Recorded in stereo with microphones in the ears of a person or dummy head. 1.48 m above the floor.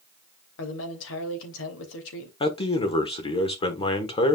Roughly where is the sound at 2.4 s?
Left.